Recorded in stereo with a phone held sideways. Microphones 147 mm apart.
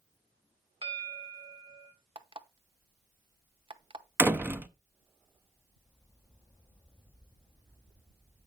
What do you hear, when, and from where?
0.8 s a bell: 40° right (ahead or behind), 1.7 m
2.1 s an alarm clock: 35° right (ahead or behind), 0.7 m
4.2 s a door slam: 15° right (ahead or behind), 0.5 m